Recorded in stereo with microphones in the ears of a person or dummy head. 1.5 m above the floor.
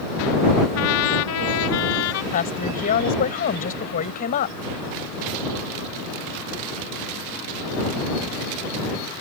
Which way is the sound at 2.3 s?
45° left (ahead or behind).